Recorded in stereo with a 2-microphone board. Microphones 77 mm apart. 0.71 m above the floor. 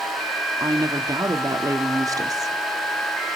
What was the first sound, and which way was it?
A woman speaking, 50° right (ahead or behind).